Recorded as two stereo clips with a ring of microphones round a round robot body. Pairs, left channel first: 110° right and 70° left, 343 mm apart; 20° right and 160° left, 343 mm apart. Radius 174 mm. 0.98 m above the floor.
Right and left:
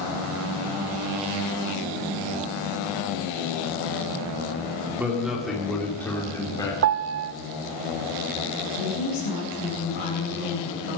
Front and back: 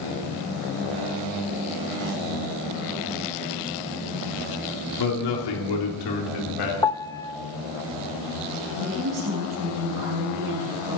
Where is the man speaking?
20° right, 3 m; by 6.7 s 35° right, 3.5 m.